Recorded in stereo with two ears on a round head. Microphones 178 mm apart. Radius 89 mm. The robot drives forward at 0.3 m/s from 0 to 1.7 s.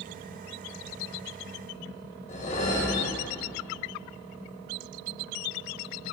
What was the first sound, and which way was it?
A whoosh, 40° left (ahead or behind).